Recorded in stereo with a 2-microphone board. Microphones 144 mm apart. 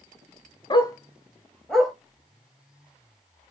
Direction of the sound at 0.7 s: 35° left (ahead or behind).